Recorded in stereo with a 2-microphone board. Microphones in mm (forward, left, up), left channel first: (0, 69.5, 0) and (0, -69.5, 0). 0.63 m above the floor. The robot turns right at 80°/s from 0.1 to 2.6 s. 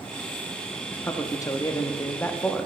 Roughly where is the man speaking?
Centre.